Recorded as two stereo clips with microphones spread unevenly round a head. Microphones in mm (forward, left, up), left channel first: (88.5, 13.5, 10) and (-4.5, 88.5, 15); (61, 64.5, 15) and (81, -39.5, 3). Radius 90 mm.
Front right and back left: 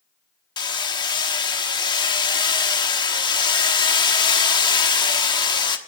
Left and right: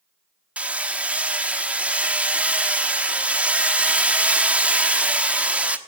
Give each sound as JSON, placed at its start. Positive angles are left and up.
{"t": 0.6, "sound": "hammering", "azimuth_deg": 0, "distance_m": 1.2}